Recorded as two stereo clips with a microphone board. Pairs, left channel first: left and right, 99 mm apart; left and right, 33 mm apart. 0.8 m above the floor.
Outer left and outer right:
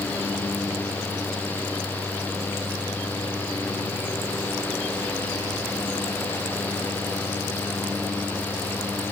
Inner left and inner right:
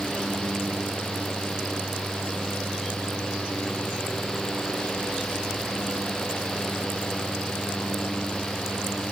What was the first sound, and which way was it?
Only background noise.